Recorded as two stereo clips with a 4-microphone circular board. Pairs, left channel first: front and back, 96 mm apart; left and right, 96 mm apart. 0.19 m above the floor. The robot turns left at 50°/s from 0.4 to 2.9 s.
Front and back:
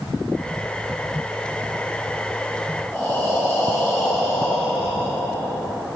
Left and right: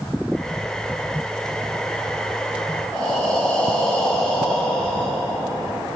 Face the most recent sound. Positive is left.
turn(degrees=30)